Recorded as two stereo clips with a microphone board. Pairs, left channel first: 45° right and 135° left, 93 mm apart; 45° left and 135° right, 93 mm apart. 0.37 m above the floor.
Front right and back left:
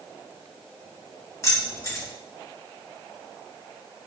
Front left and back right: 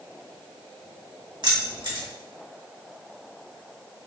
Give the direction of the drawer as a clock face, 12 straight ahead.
I don't hear a drawer.